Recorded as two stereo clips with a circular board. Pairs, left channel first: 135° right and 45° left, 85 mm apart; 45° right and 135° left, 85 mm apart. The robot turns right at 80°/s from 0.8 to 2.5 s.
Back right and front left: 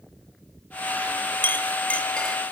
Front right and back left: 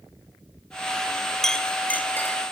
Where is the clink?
125° right, 1.0 m; by 2.4 s 45° right, 1.0 m.